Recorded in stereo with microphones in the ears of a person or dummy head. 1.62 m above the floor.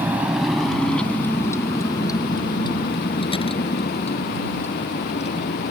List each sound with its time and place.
0.0 s a vehicle: 15° right (ahead or behind); by 5.7 s 35° left (ahead or behind)